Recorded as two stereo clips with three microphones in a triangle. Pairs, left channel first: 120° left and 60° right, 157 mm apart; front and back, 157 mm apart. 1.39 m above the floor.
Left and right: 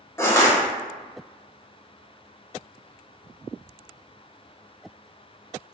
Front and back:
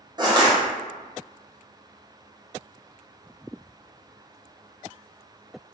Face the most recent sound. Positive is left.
turn(degrees=170)